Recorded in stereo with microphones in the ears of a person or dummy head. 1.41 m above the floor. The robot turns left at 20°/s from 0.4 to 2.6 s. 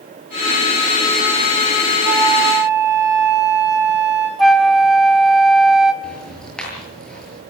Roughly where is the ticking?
Centre.